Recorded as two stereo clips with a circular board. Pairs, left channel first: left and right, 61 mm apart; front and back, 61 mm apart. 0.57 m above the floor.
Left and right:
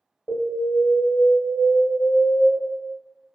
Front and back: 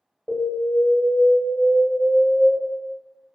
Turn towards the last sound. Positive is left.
turn(degrees=105)